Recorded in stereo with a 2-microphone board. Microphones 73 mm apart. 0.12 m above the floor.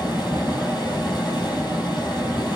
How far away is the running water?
About 1.3 m.